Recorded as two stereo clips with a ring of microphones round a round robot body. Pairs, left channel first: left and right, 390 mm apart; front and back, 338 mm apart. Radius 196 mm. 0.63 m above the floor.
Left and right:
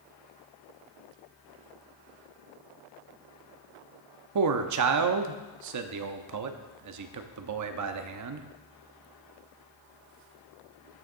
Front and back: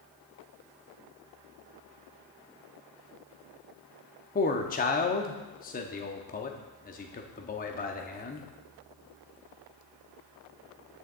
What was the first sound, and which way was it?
A man speaking, 60° right.